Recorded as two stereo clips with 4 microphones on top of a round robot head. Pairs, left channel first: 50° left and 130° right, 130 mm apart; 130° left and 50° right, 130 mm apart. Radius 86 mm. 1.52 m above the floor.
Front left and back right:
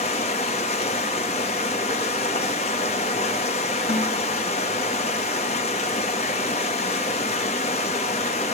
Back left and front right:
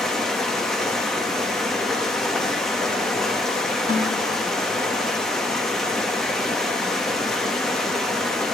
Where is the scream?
I don't hear a scream.